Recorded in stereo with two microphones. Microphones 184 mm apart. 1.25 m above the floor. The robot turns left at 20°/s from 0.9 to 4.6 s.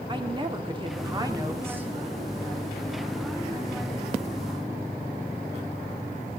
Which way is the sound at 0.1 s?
30° right (ahead or behind).